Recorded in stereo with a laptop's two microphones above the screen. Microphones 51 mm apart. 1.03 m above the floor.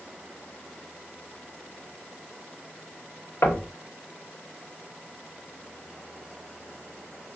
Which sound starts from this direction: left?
Knocking, at 3.4 s.